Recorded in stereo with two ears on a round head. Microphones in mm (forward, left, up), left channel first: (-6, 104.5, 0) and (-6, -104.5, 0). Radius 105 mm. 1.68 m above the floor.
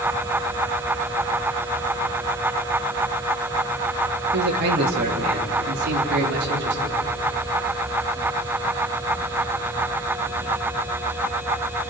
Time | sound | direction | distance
4.3 | a man speaking | 45° right (ahead or behind) | 2.5 m